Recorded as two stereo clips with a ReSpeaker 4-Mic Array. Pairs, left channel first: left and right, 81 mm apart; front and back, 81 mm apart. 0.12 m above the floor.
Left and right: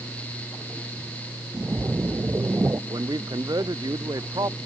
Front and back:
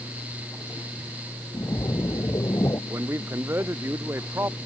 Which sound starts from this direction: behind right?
A man speaking, at 2.9 s.